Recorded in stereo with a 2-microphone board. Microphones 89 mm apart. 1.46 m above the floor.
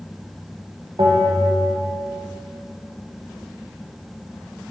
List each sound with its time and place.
1.0 s a bell: 65° right (ahead or behind), 0.9 m